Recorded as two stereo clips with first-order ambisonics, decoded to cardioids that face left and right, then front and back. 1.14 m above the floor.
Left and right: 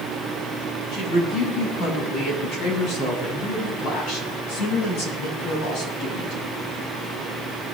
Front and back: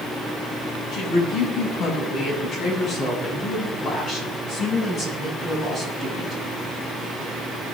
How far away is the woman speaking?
About 8 m.